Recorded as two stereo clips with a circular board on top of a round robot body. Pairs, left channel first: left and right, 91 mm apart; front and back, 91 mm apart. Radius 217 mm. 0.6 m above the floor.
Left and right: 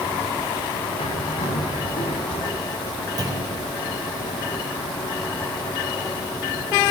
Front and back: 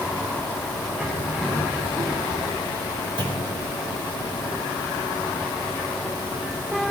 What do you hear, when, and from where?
1.0 s a bird: 100° left, 1.9 m
3.2 s a clunk: 140° right, 3.5 m